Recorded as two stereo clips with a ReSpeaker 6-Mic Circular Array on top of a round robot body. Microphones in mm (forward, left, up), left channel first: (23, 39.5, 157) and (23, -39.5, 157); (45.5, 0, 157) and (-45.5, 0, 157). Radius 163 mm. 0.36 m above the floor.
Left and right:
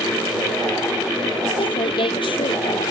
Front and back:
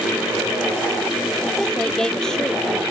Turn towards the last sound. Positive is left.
turn(degrees=85)